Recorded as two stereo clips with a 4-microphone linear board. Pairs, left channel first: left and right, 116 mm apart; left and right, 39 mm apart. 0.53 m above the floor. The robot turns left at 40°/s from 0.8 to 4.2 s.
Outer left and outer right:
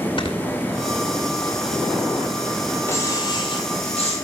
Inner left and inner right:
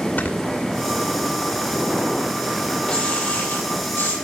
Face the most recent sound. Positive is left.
turn(degrees=105)